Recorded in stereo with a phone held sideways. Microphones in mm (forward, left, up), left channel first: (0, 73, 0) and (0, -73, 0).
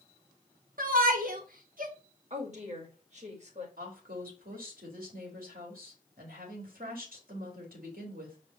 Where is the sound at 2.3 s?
50° right (ahead or behind), 1.8 m.